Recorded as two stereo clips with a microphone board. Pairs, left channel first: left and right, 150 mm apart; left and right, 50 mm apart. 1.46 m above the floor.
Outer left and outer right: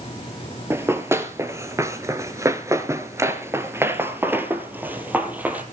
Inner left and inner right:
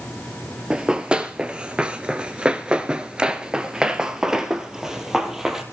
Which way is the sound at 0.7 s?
15° right (ahead or behind).